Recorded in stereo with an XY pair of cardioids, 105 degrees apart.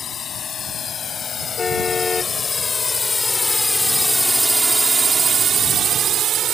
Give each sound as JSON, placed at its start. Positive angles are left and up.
{"t": 0.0, "sound": "a drone", "azimuth_deg": 55}
{"t": 1.6, "sound": "a car horn", "azimuth_deg": 35}